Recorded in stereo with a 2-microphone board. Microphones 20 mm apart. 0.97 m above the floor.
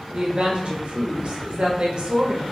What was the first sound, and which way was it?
A woman speaking, 55° right (ahead or behind).